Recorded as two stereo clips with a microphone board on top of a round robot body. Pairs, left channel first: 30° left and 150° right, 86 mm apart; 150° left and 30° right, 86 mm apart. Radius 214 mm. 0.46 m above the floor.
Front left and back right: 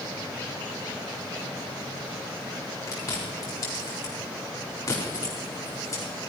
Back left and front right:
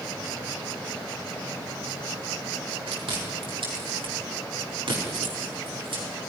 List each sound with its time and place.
2.9 s chewing: 20° right, 4.5 m